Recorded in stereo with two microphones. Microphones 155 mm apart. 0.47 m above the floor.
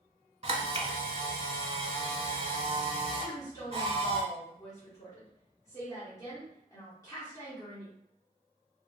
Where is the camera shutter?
40° right (ahead or behind), 0.6 m.